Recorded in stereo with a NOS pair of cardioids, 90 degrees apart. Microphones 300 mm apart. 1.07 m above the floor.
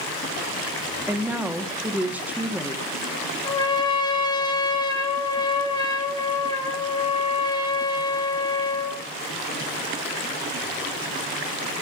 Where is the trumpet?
15° left, 4.5 m.